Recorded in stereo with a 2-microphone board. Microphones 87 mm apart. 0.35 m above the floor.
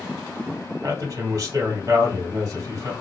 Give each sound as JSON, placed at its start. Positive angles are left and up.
{"t": 0.8, "sound": "a man speaking", "side_deg": -40, "distance_m": 1.8}